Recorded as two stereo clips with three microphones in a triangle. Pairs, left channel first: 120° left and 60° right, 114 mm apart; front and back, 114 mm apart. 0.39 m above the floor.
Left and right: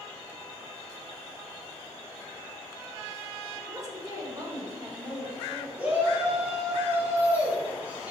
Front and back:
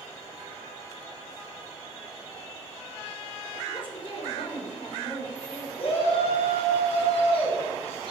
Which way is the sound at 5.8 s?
15° left.